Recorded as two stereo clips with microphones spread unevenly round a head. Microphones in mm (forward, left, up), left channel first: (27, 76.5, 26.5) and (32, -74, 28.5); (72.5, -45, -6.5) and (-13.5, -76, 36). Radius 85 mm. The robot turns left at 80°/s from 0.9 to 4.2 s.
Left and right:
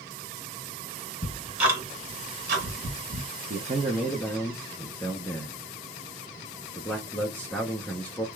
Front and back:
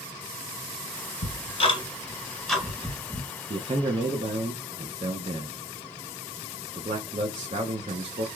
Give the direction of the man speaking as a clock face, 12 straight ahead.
4 o'clock.